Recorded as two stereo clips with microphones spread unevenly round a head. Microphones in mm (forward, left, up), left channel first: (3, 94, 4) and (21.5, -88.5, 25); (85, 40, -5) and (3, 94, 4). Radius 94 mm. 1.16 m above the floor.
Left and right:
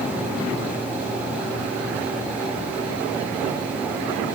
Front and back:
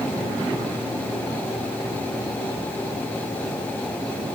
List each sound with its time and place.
Only background noise.